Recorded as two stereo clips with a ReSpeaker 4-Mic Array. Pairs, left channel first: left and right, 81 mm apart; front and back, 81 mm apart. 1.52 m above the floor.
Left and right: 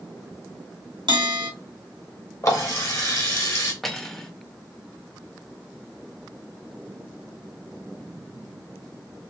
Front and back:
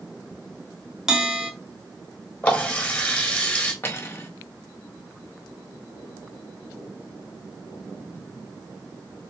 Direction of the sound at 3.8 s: 5° left.